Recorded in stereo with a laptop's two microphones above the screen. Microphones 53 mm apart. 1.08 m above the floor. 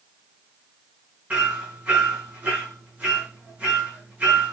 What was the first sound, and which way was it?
Hammering, 35° right (ahead or behind).